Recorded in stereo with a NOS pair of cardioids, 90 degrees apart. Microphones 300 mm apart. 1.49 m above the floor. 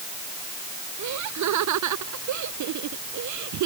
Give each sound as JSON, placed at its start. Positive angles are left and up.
{"t": 1.0, "sound": "laughter", "azimuth_deg": -70}